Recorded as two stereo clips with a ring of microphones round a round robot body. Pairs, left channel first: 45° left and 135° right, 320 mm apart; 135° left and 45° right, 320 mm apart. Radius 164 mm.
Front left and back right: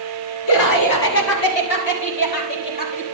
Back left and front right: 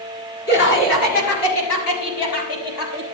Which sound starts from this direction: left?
Laughter, at 0.5 s.